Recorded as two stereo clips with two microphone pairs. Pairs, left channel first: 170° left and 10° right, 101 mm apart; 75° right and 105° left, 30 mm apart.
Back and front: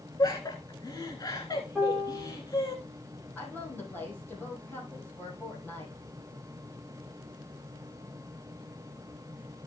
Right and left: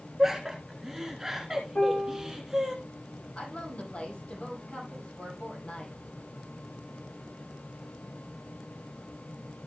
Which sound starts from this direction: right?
A piano, at 1.8 s.